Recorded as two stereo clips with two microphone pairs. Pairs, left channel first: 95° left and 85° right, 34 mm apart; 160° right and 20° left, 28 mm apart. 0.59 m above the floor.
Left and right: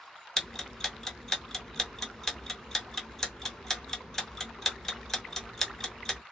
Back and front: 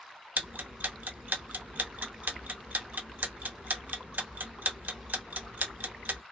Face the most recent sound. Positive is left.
turn(degrees=20)